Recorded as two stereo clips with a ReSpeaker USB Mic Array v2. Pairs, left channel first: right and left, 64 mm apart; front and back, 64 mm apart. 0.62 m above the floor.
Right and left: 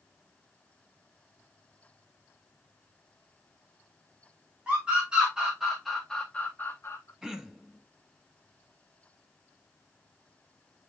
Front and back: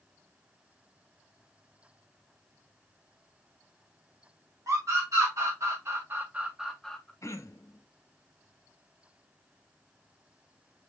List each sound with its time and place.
4.7 s a scream: 160° left, 1.6 m; by 7.1 s 65° right, 0.8 m
7.2 s throat clearing: 10° left, 0.7 m